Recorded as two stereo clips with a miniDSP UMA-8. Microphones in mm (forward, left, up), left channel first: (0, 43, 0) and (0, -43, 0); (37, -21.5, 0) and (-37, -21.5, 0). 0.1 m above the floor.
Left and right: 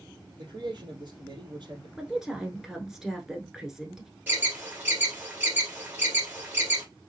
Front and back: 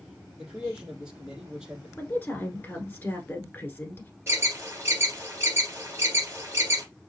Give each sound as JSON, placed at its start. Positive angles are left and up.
{"t": 0.4, "sound": "a man speaking", "azimuth_deg": -105, "distance_m": 3.5}
{"t": 2.0, "sound": "a woman speaking", "azimuth_deg": -15, "distance_m": 1.1}
{"t": 4.3, "sound": "an alarm", "azimuth_deg": -145, "distance_m": 2.5}